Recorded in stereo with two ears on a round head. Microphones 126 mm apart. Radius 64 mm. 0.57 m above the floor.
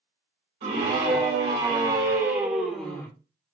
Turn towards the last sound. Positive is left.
turn(degrees=10)  # may be behind; listen again after turning